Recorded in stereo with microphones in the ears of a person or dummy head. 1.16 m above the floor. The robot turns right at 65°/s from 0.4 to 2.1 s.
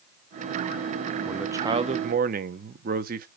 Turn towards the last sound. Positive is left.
turn(degrees=-135)